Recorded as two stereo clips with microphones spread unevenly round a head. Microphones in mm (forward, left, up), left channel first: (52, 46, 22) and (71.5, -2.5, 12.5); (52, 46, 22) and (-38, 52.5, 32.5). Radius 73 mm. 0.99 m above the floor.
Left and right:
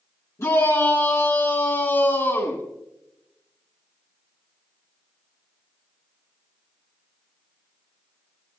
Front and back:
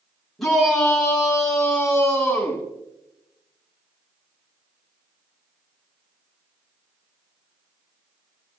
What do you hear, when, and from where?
0.4 s a shout: 80° left, 8 m; by 2.6 s 70° left, 8.5 m